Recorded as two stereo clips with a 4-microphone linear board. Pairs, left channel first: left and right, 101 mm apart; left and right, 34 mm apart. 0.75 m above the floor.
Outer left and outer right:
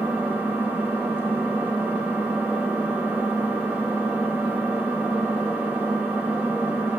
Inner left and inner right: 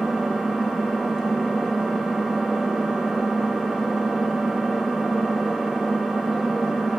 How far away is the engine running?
About 0.9 m.